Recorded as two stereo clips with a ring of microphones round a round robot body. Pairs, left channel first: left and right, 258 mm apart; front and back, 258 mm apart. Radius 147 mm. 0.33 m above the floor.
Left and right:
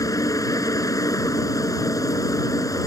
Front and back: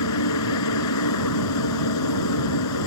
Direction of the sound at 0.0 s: 15° left.